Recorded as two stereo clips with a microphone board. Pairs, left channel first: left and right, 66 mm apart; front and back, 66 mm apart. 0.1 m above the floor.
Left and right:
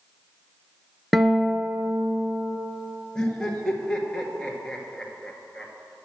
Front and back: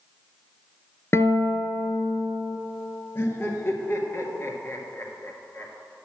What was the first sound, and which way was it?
A guitar, 5° right.